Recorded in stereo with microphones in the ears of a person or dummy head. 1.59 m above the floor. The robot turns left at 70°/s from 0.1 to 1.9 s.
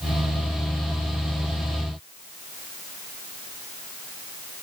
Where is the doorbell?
I don't hear a doorbell.